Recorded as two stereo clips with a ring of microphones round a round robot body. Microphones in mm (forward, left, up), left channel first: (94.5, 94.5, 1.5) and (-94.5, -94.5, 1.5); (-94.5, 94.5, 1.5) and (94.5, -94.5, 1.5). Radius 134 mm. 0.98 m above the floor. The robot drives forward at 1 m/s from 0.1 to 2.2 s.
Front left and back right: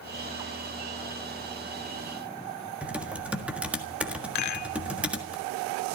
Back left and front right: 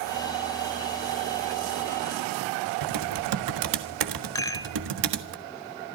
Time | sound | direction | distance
2.8 | typing on a keyboard | 50° right | 1.5 m
4.3 | a rattle | 60° left | 1.2 m